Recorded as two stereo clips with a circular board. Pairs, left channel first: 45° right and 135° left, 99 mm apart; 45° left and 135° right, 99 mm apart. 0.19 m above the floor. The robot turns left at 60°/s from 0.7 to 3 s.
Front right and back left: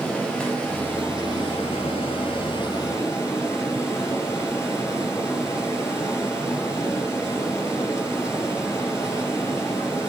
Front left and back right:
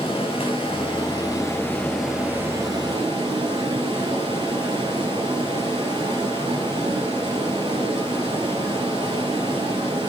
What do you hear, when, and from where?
0.0 s running water: 35° left, 4 m; by 10.1 s 105° right, 4 m